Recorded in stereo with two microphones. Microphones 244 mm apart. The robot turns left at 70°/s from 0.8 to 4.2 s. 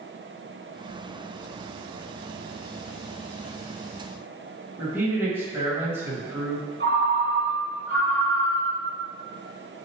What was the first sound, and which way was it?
A man speaking, 10° right (ahead or behind).